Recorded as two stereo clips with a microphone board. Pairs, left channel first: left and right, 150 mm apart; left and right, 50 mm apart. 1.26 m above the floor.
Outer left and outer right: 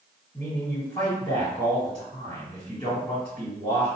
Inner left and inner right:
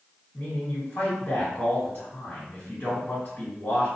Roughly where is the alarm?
I don't hear an alarm.